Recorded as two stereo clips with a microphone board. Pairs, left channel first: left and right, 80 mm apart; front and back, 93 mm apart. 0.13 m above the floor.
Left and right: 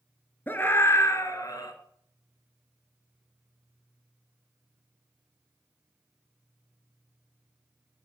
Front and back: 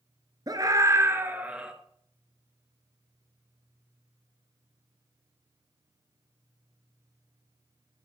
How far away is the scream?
About 2 m.